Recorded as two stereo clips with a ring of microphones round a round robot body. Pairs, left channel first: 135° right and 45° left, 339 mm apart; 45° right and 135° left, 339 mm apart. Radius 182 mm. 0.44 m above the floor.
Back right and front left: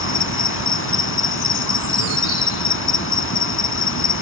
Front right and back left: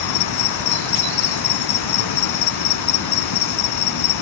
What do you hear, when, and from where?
0.0 s an insect: 80° right